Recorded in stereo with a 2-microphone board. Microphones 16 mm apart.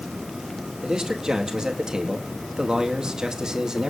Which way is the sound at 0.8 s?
50° right (ahead or behind).